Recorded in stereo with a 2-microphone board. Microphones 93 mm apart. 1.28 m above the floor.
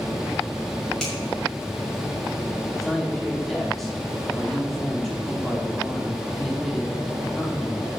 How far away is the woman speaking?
About 4 m.